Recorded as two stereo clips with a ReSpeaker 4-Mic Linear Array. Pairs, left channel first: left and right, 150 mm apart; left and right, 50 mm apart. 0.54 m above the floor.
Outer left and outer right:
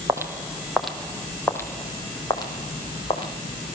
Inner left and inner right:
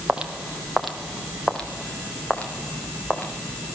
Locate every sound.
0.1 s footsteps: 20° right (ahead or behind), 1.2 m; by 3.3 s 35° left (ahead or behind), 2.5 m